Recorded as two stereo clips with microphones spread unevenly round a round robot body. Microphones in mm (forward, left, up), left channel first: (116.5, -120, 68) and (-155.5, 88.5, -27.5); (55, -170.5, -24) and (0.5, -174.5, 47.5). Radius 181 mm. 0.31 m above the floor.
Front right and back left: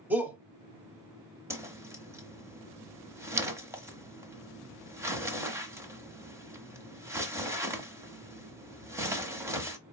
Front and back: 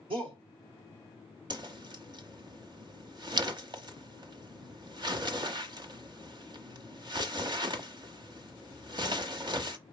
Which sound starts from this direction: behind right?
A whoosh, at 1.5 s.